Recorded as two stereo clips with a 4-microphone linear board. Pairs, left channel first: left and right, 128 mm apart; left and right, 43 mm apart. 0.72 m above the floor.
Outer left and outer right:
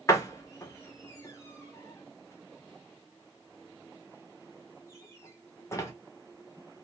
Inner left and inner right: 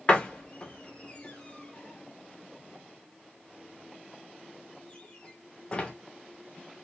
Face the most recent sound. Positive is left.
turn(degrees=25)  # may be behind; listen again after turning